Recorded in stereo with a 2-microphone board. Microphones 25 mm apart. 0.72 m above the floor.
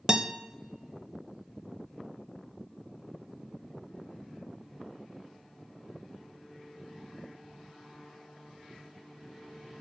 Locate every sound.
0.1 s a guitar: 25° right (ahead or behind), 0.6 m